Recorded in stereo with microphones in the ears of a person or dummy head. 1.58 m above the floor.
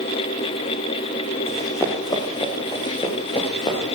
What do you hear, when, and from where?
1.5 s running footsteps: 20° left (ahead or behind), 5.5 m; by 3.8 s 30° left (ahead or behind), 7 m